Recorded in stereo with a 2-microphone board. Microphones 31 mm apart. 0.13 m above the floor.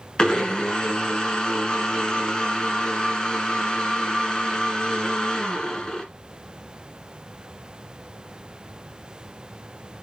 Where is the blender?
25° left (ahead or behind), 1.5 m.